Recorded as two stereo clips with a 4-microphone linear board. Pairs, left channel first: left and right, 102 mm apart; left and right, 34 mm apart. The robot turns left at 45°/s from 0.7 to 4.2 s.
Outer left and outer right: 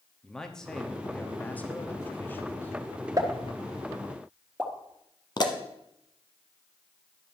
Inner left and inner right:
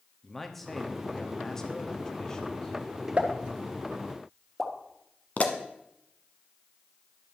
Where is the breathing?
I don't hear breathing.